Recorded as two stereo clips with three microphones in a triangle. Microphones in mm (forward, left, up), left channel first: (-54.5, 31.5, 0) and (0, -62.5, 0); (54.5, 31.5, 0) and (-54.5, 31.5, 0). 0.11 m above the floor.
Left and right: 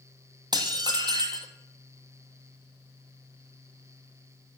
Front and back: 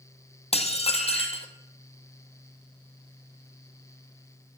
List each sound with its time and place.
0.5 s dishes clattering: 15° right, 2 m